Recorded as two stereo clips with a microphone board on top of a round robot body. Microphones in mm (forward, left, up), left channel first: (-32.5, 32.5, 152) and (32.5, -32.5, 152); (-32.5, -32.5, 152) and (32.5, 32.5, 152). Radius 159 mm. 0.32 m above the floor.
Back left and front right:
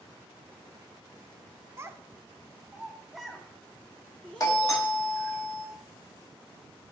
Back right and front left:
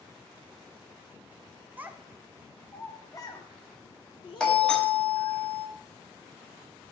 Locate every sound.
1.8 s a child speaking: 10° right, 1.0 m; by 5.4 s 150° right, 2 m
4.4 s a doorbell: 150° left, 1.8 m